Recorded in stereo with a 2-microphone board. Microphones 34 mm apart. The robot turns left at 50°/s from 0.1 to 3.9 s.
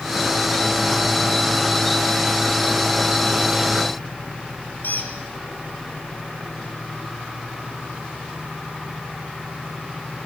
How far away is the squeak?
About 6.5 m.